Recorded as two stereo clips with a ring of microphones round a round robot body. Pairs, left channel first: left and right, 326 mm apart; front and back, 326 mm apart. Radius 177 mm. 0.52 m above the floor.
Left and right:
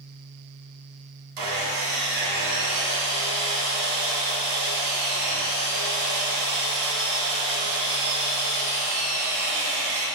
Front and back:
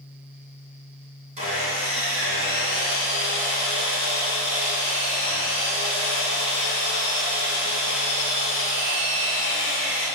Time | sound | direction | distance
1.4 | sawing | 110° right | 2.0 m